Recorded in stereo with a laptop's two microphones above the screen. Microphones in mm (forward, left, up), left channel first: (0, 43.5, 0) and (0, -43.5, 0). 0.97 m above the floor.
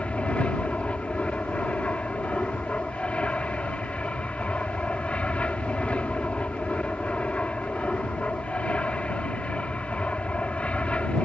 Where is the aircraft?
15° left (ahead or behind).